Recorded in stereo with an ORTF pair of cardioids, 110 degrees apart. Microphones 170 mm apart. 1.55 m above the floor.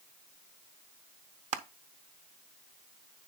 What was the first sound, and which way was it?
Crushing, 50° right.